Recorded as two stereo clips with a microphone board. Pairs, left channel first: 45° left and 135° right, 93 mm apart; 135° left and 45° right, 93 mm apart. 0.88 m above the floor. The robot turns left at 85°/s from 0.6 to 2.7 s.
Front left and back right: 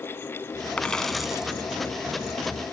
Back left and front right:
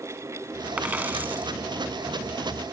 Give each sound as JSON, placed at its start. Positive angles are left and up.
{"t": 0.8, "sound": "a dropped coin", "azimuth_deg": -5}